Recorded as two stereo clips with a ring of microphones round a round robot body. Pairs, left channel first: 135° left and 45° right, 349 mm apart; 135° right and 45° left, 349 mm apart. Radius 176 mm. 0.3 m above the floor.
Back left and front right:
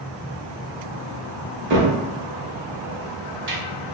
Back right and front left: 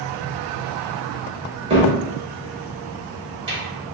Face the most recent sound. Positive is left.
turn(degrees=-20)